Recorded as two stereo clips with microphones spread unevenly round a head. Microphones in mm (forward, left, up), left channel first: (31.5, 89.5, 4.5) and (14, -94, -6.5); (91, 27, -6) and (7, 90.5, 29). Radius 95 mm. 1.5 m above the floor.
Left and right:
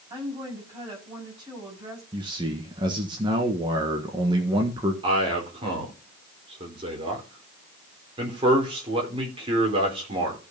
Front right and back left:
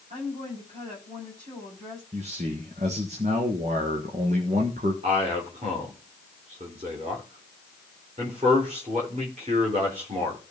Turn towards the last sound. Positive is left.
turn(degrees=-160)